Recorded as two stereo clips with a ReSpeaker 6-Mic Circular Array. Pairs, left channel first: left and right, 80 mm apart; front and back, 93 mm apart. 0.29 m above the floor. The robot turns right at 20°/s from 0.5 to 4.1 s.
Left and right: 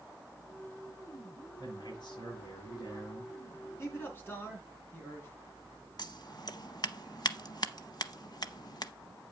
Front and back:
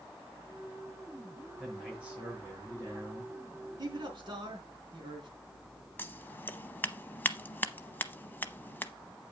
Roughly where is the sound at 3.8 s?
Behind left.